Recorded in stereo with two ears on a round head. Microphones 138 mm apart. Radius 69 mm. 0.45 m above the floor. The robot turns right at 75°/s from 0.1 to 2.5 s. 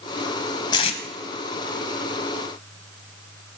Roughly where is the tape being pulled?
Left.